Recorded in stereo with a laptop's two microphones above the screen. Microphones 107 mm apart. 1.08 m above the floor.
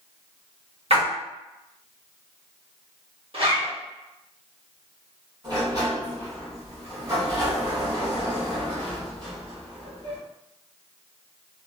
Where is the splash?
60° right (ahead or behind), 1.0 m.